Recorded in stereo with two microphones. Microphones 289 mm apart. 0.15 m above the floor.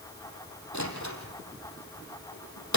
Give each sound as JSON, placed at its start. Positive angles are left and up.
{"t": 0.7, "sound": "a door slam", "side_deg": 75, "distance_m": 4.5}